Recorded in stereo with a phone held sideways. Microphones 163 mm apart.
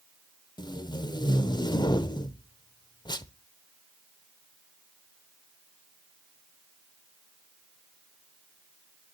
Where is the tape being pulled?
25° left (ahead or behind), 0.5 m.